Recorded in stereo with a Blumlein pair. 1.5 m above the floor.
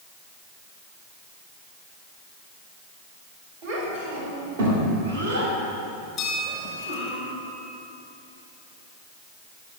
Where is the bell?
30° left, 2.5 m.